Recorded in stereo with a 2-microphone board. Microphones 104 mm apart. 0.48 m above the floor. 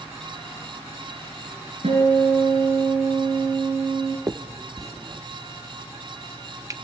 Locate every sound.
1.8 s a guitar: 70° right (ahead or behind), 5.5 m
4.3 s a finger snap: 35° right (ahead or behind), 0.7 m